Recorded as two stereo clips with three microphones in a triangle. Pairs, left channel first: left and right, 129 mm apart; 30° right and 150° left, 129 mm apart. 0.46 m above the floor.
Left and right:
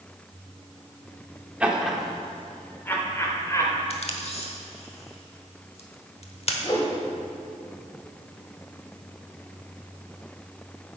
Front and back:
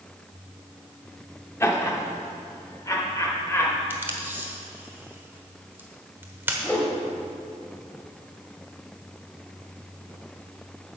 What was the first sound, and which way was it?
Laughter, 30° right.